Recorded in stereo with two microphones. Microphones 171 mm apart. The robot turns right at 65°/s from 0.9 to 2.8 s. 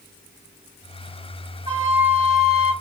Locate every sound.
1.7 s a flute: 50° right, 1.5 m; by 2.7 s 20° left, 1.5 m